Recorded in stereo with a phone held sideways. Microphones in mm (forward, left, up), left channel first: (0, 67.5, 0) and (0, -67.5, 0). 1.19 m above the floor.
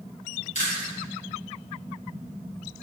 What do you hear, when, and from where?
0.6 s chewing: 60° left (ahead or behind), 5 m